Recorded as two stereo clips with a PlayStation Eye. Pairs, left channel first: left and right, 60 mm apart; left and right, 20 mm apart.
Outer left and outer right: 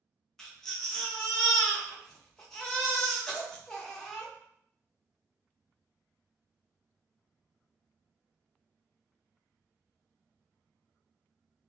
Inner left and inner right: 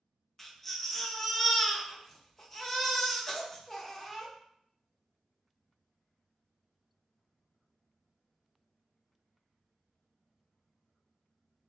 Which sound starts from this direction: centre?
A baby crying, at 0.4 s.